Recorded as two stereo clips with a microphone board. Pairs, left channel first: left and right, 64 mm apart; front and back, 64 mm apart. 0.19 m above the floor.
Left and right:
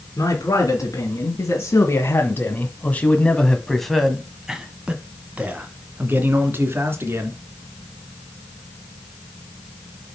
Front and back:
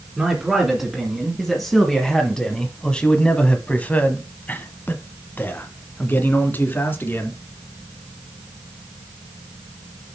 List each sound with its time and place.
0.2 s a man speaking: 100° left, 2 m; by 7.4 s 50° right, 2.5 m